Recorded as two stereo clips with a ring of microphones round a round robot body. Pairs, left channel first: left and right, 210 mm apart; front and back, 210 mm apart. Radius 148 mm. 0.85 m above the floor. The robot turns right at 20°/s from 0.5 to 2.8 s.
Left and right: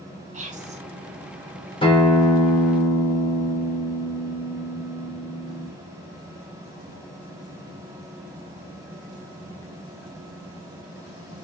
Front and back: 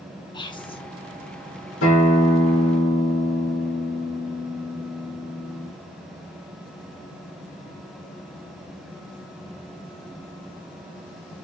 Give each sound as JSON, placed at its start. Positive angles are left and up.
{"t": 0.3, "sound": "whispering", "azimuth_deg": -55, "distance_m": 0.8}
{"t": 1.8, "sound": "a guitar", "azimuth_deg": 25, "distance_m": 1.1}